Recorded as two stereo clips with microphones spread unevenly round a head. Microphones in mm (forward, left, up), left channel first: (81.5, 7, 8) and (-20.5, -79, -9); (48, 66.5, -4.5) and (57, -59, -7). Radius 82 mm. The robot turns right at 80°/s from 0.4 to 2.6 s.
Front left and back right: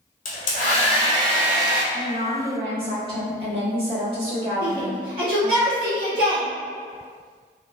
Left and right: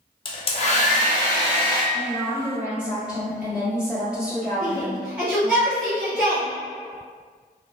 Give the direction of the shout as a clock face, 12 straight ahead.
6 o'clock.